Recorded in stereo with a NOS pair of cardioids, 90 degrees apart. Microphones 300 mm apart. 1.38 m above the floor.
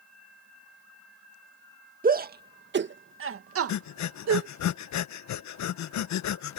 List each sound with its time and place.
2.0 s a shout: 30° right; by 4.5 s 65° right
3.7 s breathing: 70° left